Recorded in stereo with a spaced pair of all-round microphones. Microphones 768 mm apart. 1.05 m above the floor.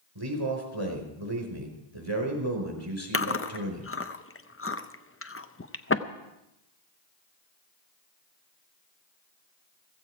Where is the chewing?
20° left (ahead or behind), 0.6 m.